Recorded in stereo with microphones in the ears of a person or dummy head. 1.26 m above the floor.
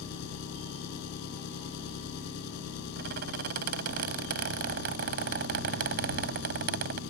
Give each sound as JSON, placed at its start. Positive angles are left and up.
{"t": 0.0, "sound": "an engine running", "side_deg": 60}
{"t": 3.0, "sound": "a squeak", "side_deg": -50}